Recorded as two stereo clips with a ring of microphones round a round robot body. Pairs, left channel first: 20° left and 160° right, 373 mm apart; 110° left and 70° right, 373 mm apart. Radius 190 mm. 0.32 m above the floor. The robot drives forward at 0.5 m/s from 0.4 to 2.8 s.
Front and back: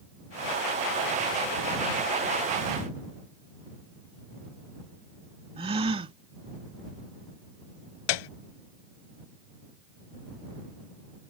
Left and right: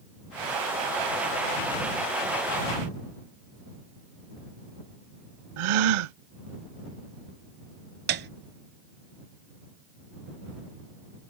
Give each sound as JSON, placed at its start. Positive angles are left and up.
{"t": 5.6, "sound": "a gasp", "azimuth_deg": -80}
{"t": 8.1, "sound": "a piano", "azimuth_deg": -5}